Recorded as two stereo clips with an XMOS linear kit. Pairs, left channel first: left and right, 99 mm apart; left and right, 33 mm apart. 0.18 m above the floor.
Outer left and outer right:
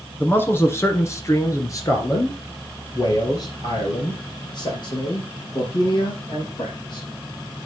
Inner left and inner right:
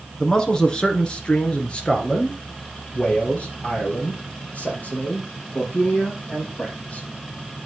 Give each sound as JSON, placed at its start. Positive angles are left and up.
{"t": 0.2, "sound": "a man speaking", "side_deg": 20, "distance_m": 1.8}